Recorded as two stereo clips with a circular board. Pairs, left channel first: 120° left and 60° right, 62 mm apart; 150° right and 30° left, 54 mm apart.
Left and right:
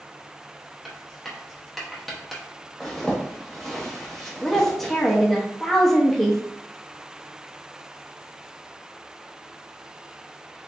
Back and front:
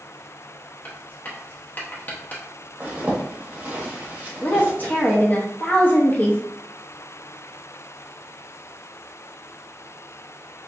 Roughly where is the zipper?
Ahead left.